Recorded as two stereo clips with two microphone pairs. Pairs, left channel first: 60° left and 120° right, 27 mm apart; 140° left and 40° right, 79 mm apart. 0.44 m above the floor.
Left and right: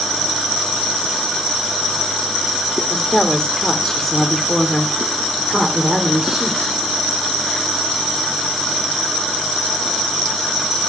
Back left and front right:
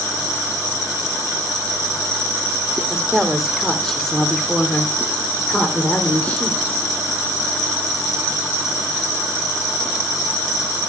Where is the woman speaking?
35° left, 1.5 m; by 6.8 s straight behind, 1.7 m.